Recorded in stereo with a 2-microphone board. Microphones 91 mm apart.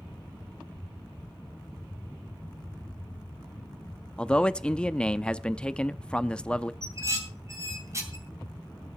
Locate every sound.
4.2 s a man speaking: 10° left (ahead or behind), 0.6 m
6.8 s dishes clattering: 35° right (ahead or behind), 3 m